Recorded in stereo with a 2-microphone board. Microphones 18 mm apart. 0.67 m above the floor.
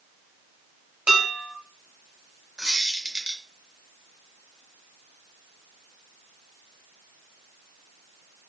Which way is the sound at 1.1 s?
70° right (ahead or behind).